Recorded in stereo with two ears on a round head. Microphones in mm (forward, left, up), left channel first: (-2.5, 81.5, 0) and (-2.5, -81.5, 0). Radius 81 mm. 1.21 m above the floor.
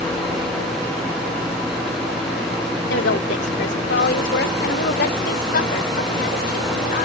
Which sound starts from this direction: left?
A woman speaking, at 2.9 s.